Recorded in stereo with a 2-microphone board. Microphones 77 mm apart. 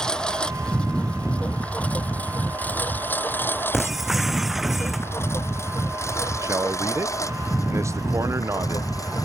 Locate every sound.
0.0 s a lawn mower: 10° left (ahead or behind); by 9.2 s 50° left (ahead or behind)
3.7 s breaking glass: centre (ahead or behind)
6.4 s a man speaking: 40° right (ahead or behind)